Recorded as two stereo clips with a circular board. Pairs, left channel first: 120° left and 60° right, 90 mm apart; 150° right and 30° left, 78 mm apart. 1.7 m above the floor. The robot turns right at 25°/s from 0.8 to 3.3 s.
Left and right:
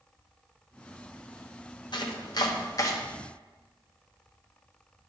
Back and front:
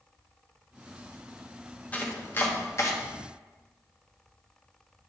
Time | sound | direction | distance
1.9 | chopping | 145° left | 1.0 m